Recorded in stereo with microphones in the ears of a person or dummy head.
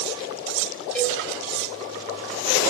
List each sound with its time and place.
0.9 s a cowbell: 10° left (ahead or behind), 9 m